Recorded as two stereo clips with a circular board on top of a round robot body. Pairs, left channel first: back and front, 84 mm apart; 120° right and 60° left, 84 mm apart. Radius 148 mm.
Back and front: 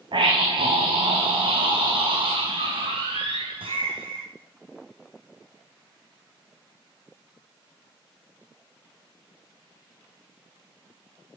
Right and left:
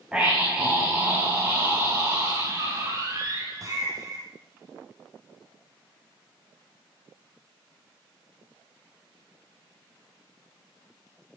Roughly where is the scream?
Ahead.